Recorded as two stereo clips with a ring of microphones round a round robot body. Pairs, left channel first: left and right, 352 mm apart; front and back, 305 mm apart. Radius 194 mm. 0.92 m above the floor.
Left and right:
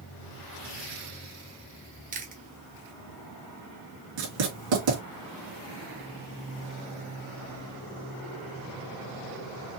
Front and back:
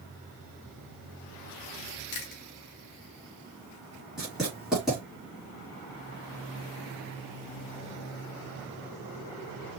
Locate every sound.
2.1 s chewing: 25° right, 0.9 m
4.2 s writing: 90° right, 3 m